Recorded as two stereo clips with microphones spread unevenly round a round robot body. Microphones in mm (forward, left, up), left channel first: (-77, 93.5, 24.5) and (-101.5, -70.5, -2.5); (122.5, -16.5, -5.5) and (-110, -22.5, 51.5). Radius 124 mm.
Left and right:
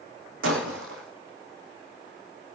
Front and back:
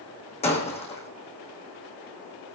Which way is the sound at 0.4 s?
65° right.